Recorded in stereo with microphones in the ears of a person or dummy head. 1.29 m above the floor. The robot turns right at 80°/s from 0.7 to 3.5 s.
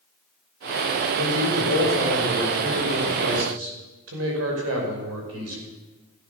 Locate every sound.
1.1 s a man speaking: 75° left, 6 m; by 5.6 s 95° right, 6 m